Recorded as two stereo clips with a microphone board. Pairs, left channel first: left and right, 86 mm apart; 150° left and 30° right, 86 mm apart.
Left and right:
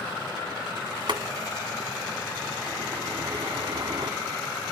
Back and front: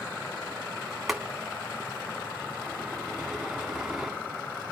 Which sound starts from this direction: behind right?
Boiling, at 1.1 s.